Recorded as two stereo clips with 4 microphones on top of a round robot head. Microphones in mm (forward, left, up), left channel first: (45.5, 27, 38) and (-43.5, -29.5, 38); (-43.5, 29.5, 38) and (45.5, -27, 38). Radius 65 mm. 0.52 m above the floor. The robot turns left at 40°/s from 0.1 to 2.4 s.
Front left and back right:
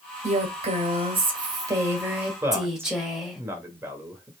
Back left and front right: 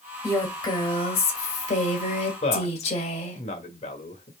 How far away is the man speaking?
About 1.6 m.